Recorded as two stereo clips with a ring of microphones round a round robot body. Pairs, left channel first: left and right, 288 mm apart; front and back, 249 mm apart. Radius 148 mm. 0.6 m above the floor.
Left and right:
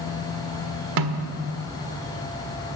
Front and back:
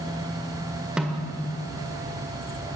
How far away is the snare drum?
About 1.5 m.